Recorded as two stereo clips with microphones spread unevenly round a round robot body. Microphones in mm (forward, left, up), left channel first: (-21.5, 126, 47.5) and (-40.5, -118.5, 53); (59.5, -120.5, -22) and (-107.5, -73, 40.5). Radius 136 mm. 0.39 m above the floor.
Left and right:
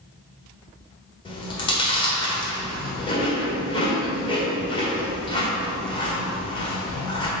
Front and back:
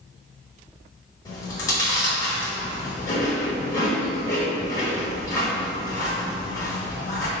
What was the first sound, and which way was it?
Chewing, 25° left.